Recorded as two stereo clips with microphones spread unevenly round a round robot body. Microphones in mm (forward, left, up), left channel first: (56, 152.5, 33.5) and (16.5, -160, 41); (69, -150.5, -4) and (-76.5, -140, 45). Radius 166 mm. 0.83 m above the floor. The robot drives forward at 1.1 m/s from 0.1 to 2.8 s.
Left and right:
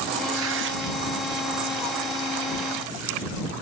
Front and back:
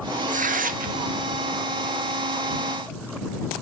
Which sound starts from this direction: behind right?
Tearing paper, at 0.3 s.